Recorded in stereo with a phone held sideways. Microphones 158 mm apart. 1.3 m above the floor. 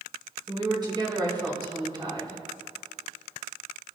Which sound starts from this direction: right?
A woman speaking, at 0.5 s.